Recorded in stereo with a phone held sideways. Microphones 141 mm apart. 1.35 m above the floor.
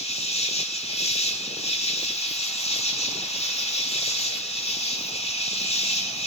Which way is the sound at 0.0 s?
45° left (ahead or behind).